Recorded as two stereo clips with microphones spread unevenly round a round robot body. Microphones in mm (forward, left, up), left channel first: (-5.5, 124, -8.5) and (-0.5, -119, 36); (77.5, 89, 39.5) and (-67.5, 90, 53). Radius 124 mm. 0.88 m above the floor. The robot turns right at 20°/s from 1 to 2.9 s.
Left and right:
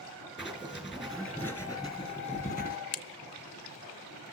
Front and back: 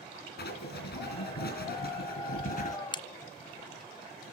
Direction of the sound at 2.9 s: 55° left.